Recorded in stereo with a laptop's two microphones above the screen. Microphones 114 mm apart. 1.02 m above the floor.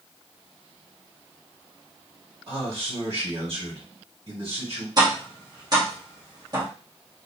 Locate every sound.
2.5 s a man speaking: 50° right (ahead or behind), 1.9 m
5.0 s tapping: 35° right (ahead or behind), 1.2 m